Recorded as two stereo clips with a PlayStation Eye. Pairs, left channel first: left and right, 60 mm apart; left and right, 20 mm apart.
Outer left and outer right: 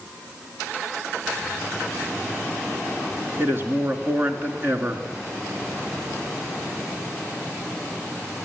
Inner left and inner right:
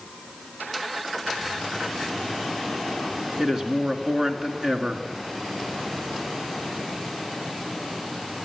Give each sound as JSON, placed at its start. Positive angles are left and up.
{"t": 3.4, "sound": "a man speaking", "side_deg": -40, "distance_m": 1.9}